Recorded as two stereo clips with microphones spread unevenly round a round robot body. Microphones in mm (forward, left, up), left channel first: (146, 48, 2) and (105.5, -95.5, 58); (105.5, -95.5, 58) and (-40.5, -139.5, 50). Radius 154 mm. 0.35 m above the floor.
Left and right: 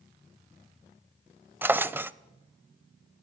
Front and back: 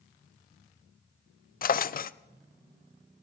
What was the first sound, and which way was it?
A drawer, 20° right.